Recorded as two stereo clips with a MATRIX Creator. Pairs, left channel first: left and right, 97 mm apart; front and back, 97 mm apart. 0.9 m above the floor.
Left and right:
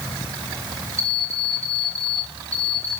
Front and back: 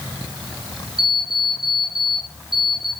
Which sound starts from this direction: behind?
An alarm clock, at 1.0 s.